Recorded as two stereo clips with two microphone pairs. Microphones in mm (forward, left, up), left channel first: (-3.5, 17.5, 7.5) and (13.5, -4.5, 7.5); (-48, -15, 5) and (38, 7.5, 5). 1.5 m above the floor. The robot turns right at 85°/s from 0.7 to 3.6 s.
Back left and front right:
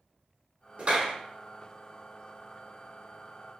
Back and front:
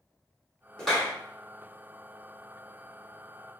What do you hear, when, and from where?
0.8 s a clap: 85° right, 1.2 m; by 1.1 s 55° right, 1.2 m